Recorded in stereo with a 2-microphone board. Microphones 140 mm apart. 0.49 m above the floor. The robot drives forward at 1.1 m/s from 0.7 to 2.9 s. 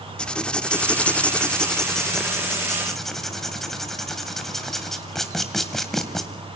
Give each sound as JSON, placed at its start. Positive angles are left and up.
{"t": 0.2, "sound": "writing", "side_deg": 5, "distance_m": 0.7}